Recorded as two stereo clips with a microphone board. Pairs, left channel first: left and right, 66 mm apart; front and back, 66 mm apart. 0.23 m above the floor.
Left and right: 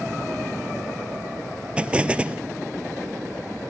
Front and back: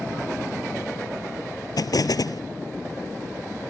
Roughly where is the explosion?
Ahead.